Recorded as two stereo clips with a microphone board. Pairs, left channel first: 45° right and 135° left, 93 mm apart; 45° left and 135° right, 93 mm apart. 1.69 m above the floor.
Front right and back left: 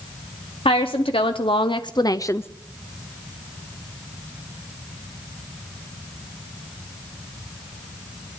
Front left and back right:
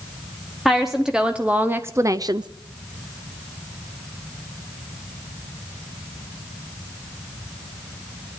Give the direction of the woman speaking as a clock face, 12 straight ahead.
2 o'clock.